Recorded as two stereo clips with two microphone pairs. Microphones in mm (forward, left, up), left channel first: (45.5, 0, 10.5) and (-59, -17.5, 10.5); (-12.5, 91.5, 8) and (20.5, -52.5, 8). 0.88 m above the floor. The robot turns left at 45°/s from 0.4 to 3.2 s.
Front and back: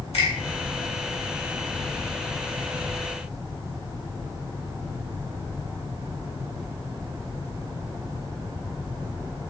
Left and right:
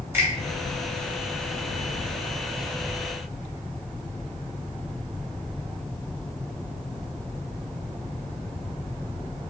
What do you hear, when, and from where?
0.1 s a finger snap: 5° right, 1.5 m